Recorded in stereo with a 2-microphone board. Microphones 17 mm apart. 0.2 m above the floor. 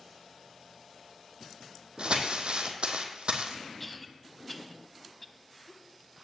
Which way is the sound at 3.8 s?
10° left (ahead or behind).